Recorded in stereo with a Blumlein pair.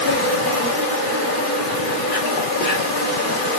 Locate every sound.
0.0 s an insect: 40° left, 1.4 m